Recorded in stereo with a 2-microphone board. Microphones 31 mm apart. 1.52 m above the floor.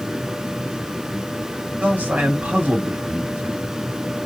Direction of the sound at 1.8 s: 70° right (ahead or behind).